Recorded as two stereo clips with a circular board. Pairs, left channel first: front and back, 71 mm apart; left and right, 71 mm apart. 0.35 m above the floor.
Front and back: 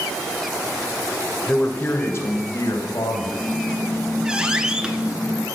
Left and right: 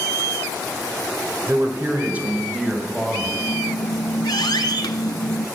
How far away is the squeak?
About 0.7 m.